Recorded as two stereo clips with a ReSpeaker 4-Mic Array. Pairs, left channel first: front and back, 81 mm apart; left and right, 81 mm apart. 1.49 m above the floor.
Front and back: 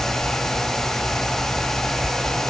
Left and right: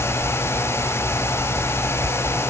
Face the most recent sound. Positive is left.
No sound to turn to.